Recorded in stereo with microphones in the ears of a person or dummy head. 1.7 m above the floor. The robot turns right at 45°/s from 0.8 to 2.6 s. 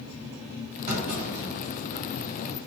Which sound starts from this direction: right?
A clunk, at 0.9 s.